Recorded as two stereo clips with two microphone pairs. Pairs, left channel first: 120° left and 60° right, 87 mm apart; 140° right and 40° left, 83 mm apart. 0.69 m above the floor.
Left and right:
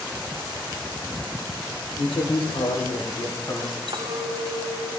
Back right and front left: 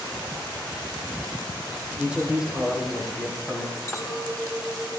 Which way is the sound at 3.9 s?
80° right.